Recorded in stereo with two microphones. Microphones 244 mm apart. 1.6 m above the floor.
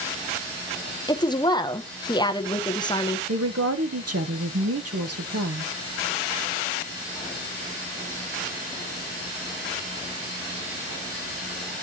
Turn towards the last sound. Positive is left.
turn(degrees=-75)  # may be behind; listen again after turning